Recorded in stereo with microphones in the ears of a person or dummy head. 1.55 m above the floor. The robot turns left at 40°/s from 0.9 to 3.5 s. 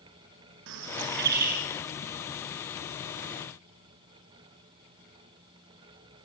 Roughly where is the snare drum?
No snare drum in this recording.